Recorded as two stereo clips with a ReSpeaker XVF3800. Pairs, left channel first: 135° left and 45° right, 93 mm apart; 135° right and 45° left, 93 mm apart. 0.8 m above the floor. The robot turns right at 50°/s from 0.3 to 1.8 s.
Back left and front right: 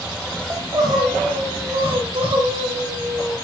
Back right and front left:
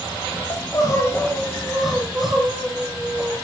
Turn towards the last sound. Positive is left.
turn(degrees=-45)